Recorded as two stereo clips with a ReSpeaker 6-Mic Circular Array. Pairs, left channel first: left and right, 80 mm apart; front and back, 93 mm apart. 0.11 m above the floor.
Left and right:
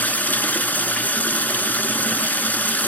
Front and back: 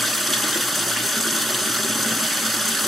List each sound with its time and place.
0.0 s running water: 90° left, 1.0 m